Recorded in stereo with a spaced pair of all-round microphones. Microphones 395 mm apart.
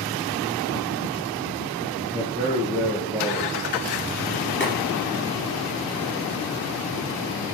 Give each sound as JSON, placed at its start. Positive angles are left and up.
{"t": 2.0, "sound": "a man speaking", "side_deg": -5, "distance_m": 2.0}
{"t": 4.6, "sound": "boiling", "side_deg": 30, "distance_m": 5.5}